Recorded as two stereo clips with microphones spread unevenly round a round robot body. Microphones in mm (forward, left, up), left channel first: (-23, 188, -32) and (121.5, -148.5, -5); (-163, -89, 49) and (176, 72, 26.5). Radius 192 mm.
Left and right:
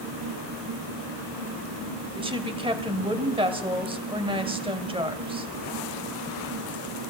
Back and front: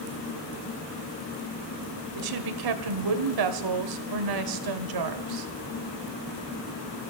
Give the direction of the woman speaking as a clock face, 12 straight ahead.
12 o'clock.